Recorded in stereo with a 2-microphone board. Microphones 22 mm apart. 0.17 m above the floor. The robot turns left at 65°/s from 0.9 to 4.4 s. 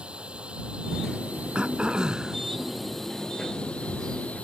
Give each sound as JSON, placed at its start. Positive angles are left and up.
{"t": 0.0, "sound": "a drone", "azimuth_deg": -55}
{"t": 1.6, "sound": "throat clearing", "azimuth_deg": -90}